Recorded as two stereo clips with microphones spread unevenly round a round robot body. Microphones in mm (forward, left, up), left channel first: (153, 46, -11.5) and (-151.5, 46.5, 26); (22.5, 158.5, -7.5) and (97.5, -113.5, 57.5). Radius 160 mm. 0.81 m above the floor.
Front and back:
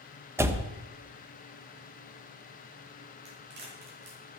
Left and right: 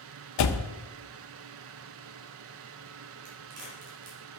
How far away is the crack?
About 4 m.